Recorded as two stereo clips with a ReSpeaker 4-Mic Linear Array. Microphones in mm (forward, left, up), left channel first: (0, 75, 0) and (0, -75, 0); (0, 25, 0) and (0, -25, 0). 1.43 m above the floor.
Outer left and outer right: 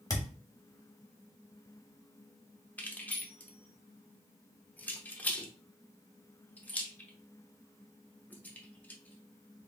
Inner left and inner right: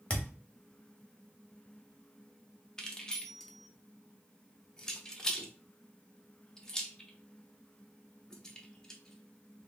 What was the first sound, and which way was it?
A thud, 25° left (ahead or behind).